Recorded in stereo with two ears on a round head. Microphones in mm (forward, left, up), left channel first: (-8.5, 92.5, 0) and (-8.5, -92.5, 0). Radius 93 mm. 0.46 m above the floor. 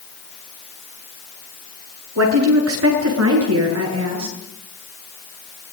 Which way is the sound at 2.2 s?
80° right.